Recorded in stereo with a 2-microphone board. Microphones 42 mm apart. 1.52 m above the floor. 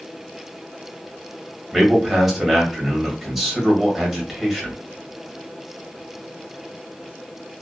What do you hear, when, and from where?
1.7 s a man speaking: centre (ahead or behind), 1.3 m